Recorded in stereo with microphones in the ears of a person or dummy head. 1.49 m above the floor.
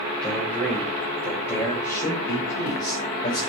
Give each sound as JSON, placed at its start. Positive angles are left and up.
{"t": 0.2, "sound": "a man speaking", "side_deg": 5, "distance_m": 8.5}